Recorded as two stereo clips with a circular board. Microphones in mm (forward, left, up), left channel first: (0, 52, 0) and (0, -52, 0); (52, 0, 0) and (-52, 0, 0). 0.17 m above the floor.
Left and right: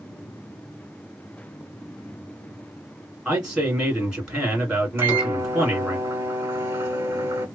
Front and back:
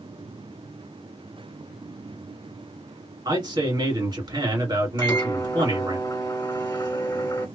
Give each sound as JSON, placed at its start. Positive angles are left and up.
{"t": 3.2, "sound": "a man speaking", "azimuth_deg": -170, "distance_m": 2.0}
{"t": 5.0, "sound": "a microwave", "azimuth_deg": -35, "distance_m": 1.2}